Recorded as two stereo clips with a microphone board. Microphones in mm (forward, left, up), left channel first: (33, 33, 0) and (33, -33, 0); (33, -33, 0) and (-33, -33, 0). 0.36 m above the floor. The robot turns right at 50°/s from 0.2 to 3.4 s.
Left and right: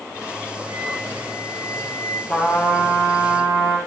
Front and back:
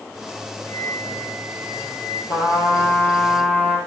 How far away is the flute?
About 8 m.